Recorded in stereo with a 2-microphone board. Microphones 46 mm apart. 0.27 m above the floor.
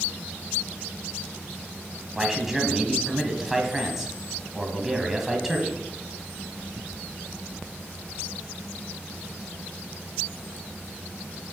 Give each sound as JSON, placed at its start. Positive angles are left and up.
{"t": 2.1, "sound": "a man speaking", "side_deg": -5, "distance_m": 1.6}